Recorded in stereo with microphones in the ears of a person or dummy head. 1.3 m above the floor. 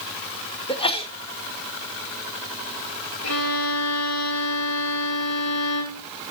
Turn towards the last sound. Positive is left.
turn(degrees=80)